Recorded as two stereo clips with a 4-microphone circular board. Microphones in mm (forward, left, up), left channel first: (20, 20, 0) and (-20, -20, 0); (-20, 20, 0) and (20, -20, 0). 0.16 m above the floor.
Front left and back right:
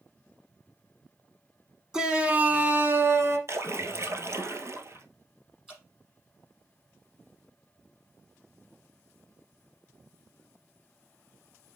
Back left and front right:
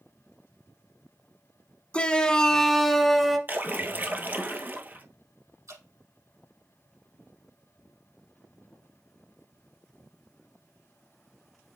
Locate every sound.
1.9 s a shout: 165° left, 1.1 m; by 3.4 s 130° right, 1.6 m
3.5 s a splash: 100° right, 1.0 m
5.7 s dripping: 55° right, 5.5 m